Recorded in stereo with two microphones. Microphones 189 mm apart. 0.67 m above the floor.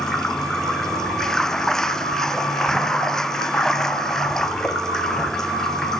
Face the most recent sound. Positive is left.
turn(degrees=0)  # may be behind; listen again after turning